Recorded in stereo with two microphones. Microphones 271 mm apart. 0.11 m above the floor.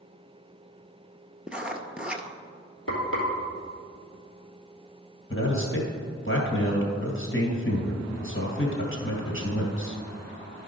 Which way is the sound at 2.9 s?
50° left (ahead or behind).